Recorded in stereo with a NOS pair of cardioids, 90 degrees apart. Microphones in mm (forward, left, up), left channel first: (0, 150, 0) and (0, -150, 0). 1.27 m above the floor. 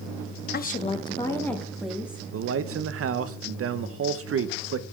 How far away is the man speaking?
About 1.0 m.